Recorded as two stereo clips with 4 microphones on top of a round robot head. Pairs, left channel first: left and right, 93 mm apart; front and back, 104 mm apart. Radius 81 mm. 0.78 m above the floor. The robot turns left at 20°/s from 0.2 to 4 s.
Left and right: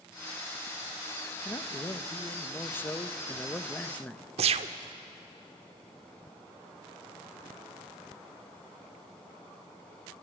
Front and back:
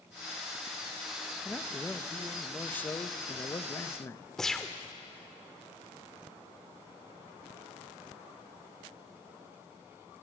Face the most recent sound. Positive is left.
turn(degrees=-85)